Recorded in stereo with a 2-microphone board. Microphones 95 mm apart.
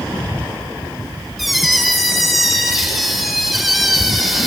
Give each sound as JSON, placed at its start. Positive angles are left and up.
{"t": 1.4, "sound": "a squeak", "side_deg": 0, "distance_m": 2.0}